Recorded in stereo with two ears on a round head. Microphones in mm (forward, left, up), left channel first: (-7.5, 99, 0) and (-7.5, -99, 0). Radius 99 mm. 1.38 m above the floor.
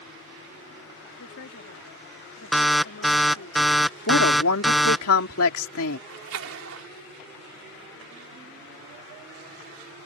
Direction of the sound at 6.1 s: 70° right (ahead or behind).